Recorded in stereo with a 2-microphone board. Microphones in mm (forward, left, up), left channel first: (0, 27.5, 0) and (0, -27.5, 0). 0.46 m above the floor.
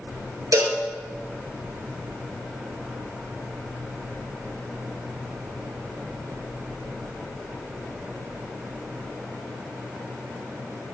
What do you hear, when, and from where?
0.5 s a cowbell: 65° right (ahead or behind), 5 m